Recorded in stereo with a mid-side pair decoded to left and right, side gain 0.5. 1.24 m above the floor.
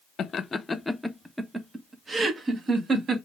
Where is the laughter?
50° left, 0.8 m; by 3.1 s 40° right, 2.0 m.